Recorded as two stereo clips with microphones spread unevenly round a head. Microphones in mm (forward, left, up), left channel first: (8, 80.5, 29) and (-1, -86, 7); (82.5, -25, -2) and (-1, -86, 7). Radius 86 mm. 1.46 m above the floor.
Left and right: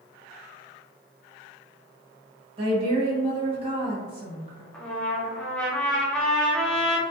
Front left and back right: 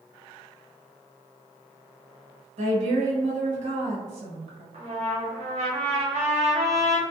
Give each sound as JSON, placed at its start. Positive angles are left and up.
{"t": 2.6, "sound": "a woman speaking", "azimuth_deg": -150, "distance_m": 1.1}
{"t": 4.7, "sound": "a trumpet", "azimuth_deg": 175, "distance_m": 0.5}